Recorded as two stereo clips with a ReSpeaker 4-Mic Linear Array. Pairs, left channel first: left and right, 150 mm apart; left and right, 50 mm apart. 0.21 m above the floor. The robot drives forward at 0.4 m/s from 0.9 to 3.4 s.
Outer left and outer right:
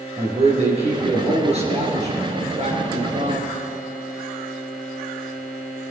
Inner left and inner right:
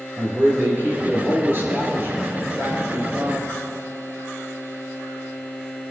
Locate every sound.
0.2 s a man speaking: 40° right (ahead or behind), 4.5 m; by 3.6 s 50° right (ahead or behind), 4 m